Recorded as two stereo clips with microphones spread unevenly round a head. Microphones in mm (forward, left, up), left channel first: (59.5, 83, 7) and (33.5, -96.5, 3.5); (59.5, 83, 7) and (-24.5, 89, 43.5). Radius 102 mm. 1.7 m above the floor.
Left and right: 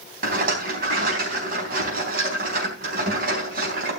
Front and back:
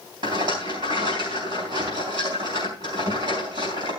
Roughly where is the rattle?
Behind right.